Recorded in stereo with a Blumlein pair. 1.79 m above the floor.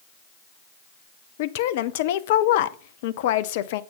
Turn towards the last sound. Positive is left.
turn(degrees=50)